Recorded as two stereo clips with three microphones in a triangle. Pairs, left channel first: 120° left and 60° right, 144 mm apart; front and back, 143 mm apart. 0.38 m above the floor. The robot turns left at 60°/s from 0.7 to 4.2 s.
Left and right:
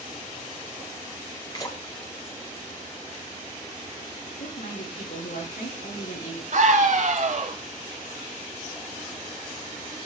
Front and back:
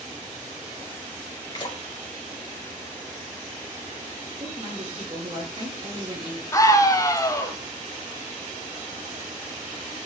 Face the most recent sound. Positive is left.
turn(degrees=-65)